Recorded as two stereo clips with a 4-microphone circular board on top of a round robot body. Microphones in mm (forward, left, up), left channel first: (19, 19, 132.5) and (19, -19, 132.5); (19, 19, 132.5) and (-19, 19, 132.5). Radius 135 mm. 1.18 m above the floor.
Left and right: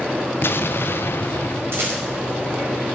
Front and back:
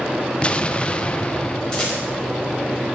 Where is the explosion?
65° left, 1.0 m.